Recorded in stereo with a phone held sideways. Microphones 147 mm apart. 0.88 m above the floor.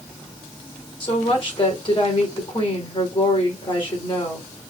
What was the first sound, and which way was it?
A woman speaking, 35° left (ahead or behind).